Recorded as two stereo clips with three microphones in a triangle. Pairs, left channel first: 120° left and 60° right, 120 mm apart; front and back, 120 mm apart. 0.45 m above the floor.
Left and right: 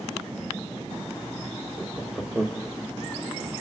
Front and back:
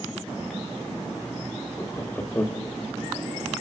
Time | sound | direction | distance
1.8 | laughter | 25° left | 0.9 m